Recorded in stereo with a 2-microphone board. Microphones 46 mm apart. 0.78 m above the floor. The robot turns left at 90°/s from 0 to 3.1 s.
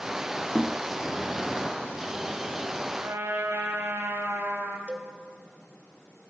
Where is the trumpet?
70° right (ahead or behind), 3.5 m; by 4.8 s 80° right, 3.5 m.